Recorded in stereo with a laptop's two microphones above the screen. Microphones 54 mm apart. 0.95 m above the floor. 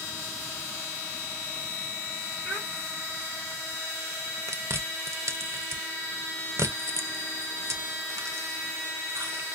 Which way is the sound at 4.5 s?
65° right (ahead or behind).